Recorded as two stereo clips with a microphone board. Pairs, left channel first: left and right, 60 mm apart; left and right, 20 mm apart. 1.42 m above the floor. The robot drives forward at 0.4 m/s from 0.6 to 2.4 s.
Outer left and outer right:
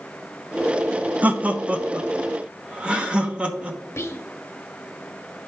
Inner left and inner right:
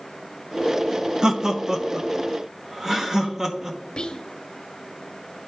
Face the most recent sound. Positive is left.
turn(degrees=45)  # may be behind; listen again after turning